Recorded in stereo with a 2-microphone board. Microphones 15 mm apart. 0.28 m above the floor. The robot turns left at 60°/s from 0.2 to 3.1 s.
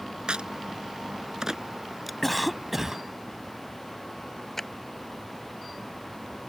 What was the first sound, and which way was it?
A crack, 70° right (ahead or behind).